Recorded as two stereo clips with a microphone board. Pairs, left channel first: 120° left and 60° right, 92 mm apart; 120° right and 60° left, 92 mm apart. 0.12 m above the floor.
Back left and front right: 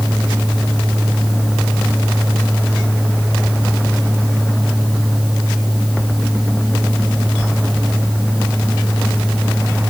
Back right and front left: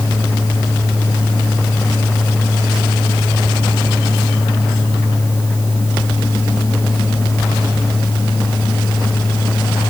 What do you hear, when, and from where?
Only background noise.